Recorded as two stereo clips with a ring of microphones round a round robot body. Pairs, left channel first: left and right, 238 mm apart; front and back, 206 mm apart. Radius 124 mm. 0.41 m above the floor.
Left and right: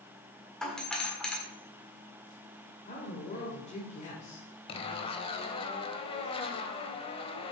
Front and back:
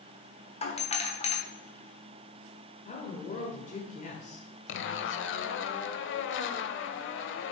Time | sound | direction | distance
0.6 | a doorbell | 5° left | 1.6 m
2.9 | a woman speaking | 40° left | 1.4 m
4.7 | a zipper | 20° left | 0.7 m